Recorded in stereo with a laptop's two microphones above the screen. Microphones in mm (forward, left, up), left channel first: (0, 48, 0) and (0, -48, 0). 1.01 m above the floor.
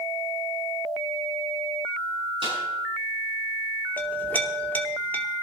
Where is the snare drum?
65° right (ahead or behind), 6 m.